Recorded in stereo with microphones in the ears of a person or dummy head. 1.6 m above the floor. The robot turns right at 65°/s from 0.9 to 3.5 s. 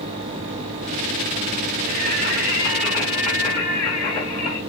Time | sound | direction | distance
1.9 | singing | 75° right | 1.5 m